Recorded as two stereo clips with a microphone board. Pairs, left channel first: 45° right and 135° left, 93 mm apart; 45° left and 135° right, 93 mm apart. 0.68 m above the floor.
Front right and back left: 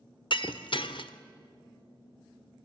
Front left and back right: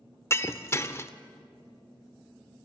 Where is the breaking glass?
15° right, 1.0 m.